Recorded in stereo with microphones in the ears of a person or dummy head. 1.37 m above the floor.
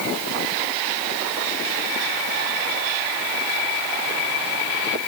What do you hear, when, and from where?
Only background noise.